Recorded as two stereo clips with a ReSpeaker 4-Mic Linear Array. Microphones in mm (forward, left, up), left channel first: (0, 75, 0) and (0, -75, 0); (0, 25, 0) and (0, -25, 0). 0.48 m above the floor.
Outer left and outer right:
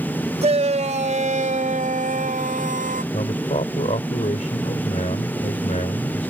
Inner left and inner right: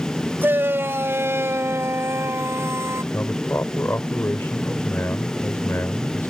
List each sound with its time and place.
0.4 s a shout: 45° right (ahead or behind); by 3.0 s 65° right (ahead or behind)
3.1 s a man speaking: 55° left (ahead or behind)